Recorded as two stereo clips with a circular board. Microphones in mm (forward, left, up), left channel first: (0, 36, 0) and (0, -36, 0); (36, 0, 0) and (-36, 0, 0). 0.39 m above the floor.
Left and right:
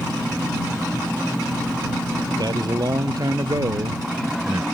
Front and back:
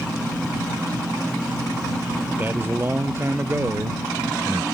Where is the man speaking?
115° right; by 4.7 s 130° right.